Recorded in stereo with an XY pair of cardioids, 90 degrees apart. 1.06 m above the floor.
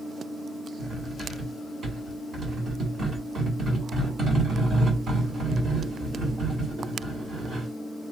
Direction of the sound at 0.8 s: 55° right.